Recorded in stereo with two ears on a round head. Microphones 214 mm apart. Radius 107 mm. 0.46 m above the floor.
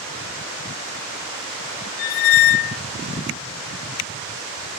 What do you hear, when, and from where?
2.0 s a squeak: 55° left (ahead or behind), 0.7 m